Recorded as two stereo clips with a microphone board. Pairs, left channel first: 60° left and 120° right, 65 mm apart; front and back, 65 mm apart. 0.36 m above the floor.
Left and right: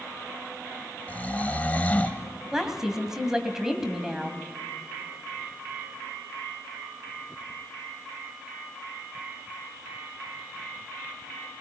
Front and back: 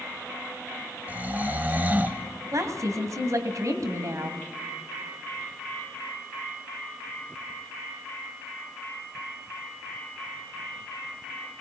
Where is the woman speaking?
160° left, 2 m.